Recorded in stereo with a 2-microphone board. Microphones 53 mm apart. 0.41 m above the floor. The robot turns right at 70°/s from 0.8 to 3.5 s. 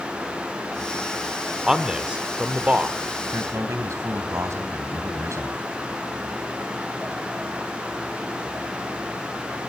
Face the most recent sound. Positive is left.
turn(degrees=-65)  # may be behind; listen again after turning